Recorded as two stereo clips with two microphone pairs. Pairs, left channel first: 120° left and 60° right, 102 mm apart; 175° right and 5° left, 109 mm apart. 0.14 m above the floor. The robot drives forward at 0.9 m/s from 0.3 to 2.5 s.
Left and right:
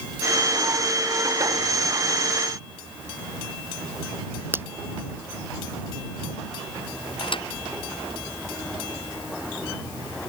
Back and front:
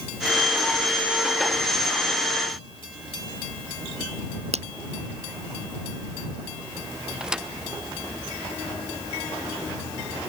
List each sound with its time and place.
4.5 s a finger snap: 10° left
7.2 s a thud: 85° left